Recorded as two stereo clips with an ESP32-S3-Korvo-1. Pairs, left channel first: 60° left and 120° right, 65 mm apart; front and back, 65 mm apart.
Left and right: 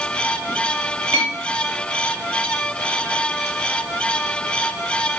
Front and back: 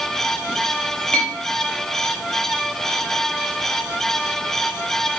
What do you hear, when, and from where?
1.1 s a clink: 75° right, 1.0 m